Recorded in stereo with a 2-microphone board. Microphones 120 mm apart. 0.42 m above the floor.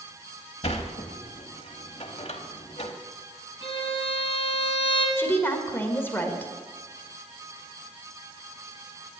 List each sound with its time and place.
0.6 s a sliding door: 55° left (ahead or behind), 1.0 m
3.6 s a violin: 50° left (ahead or behind), 1.9 m
5.2 s a woman speaking: 20° left (ahead or behind), 1.4 m